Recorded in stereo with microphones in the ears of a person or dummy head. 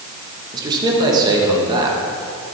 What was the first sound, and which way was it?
A man speaking, 25° right (ahead or behind).